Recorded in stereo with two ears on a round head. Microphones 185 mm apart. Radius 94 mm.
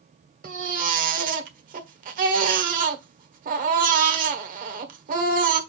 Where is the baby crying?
40° right (ahead or behind), 1.4 m.